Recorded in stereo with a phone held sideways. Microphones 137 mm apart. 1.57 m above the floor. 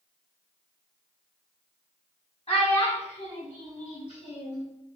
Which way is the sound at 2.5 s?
45° left (ahead or behind).